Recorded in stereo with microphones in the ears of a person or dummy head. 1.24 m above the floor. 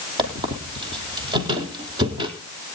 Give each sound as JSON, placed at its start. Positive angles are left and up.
{"t": 0.2, "sound": "a squeak", "side_deg": -25, "distance_m": 3.5}